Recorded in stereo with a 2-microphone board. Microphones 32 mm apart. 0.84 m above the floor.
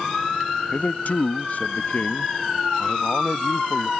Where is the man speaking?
60° left (ahead or behind).